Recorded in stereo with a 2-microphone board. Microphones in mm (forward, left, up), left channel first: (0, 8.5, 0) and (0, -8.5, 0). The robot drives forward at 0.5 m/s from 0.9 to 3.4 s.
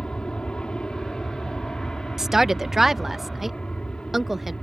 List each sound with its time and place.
0.0 s an aircraft: 65° left (ahead or behind)
2.2 s a woman speaking: 30° right (ahead or behind); by 4.5 s 20° right (ahead or behind)